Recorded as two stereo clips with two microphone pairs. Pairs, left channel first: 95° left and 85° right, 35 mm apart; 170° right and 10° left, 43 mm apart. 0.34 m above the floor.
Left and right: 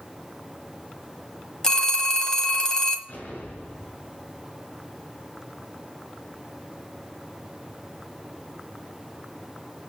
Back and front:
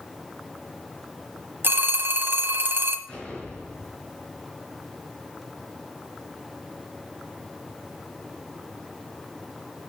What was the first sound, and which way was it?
A phone ringing, 30° left.